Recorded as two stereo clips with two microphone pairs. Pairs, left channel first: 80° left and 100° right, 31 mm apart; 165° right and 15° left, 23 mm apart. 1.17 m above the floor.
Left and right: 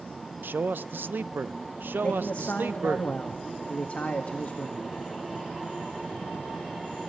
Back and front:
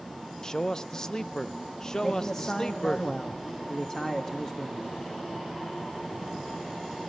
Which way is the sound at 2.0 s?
130° left.